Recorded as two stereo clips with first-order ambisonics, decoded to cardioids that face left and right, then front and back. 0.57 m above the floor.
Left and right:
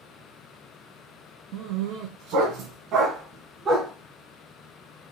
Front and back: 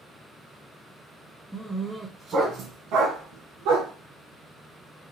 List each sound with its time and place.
1.5 s a dog barking: 100° right, 1.9 m; by 3.9 s 165° right, 2 m